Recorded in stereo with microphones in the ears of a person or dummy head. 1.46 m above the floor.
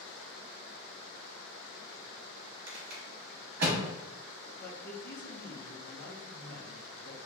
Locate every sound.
2.7 s a rattle: 55° right (ahead or behind), 1.0 m
4.6 s a man speaking: 45° left (ahead or behind), 0.9 m